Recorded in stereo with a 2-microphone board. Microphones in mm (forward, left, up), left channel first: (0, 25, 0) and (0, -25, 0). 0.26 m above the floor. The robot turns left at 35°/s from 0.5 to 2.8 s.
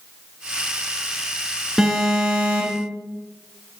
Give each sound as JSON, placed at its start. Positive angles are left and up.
{"t": 1.8, "sound": "an alarm", "azimuth_deg": -10, "distance_m": 3.0}